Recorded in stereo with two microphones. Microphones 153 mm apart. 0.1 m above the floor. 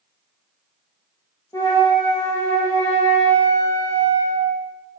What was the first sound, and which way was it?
A flute, 25° left (ahead or behind).